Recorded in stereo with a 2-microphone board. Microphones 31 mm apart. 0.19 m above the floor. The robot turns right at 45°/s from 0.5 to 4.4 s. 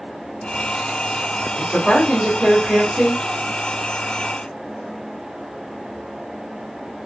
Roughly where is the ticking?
I don't hear ticking.